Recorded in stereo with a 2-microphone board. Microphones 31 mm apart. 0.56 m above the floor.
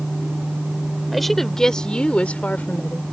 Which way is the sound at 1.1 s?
5° left (ahead or behind).